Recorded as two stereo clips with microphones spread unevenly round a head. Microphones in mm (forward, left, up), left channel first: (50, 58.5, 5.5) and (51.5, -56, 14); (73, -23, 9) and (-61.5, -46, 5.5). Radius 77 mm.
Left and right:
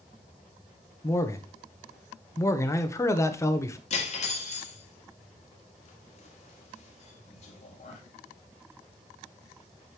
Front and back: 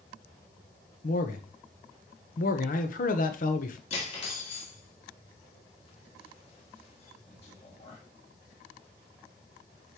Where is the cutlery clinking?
65° left, 1.8 m.